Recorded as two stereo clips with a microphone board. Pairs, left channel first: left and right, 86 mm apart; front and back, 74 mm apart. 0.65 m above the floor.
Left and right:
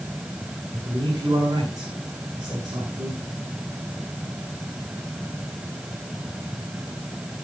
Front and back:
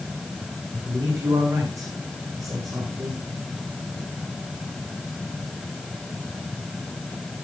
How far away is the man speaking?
About 7 m.